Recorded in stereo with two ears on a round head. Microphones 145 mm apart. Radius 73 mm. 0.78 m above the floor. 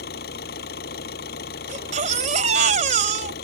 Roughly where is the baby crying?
Right.